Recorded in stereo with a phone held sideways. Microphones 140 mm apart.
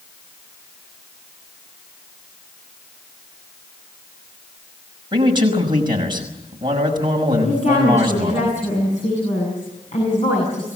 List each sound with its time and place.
5.1 s a man speaking: 35° right (ahead or behind), 6 m
7.4 s a woman speaking: 55° left (ahead or behind), 8 m